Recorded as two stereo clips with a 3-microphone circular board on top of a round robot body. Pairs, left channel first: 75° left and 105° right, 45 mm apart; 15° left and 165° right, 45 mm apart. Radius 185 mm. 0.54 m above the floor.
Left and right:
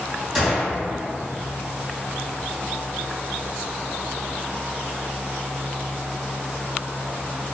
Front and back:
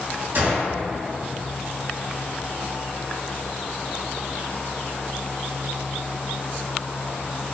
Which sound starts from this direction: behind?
A gunshot, at 0.3 s.